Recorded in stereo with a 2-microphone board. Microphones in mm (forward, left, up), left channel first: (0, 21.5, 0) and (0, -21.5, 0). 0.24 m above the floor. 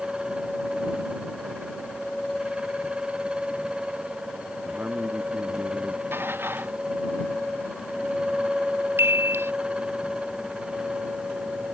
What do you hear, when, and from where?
4.7 s a man speaking: 45° right (ahead or behind)
6.1 s dishes clattering: 60° right (ahead or behind)
9.0 s a chime: 70° right (ahead or behind)